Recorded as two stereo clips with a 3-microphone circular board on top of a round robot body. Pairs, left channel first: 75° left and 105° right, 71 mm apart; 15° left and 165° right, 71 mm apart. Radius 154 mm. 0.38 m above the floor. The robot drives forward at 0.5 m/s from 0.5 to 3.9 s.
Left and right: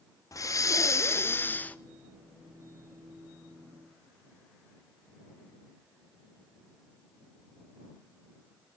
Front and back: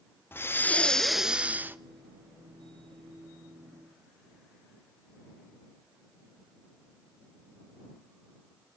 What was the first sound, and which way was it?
Breathing, 65° left.